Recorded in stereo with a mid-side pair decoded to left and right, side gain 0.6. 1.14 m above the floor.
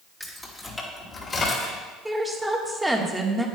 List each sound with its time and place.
0.2 s keys jangling: straight ahead, 2.0 m; by 1.8 s 40° left, 3.5 m
2.0 s a woman speaking: 5° right, 1.4 m